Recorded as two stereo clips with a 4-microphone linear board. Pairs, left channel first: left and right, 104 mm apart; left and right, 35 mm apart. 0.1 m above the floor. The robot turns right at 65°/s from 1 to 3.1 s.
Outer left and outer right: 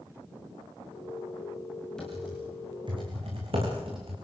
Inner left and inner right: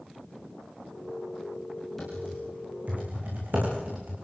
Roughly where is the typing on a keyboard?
Centre.